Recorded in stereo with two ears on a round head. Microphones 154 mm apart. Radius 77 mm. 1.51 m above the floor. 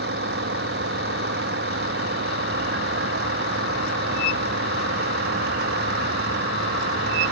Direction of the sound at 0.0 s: 65° right (ahead or behind).